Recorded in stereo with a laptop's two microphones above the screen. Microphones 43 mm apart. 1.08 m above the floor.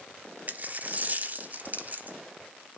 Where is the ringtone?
No ringtone in this recording.